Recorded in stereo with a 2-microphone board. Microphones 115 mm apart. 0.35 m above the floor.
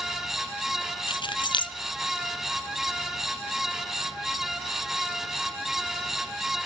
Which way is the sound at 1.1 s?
45° left (ahead or behind).